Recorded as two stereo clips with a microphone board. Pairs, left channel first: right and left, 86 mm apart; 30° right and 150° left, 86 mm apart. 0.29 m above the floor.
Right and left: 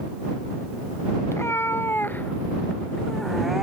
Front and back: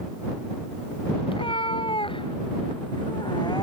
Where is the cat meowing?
30° right; by 3.6 s 5° left.